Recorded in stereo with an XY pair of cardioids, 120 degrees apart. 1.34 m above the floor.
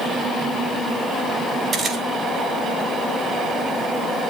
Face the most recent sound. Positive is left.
turn(degrees=-45)